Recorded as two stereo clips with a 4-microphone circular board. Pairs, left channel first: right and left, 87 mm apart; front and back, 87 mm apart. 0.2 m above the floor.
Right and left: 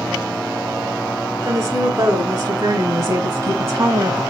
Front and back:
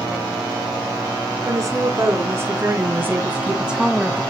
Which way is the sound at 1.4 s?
150° left.